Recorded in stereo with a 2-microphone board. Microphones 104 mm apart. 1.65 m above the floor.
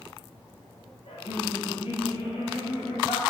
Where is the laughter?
60° left (ahead or behind), 1.7 m; by 3.2 s 70° left (ahead or behind), 3.5 m.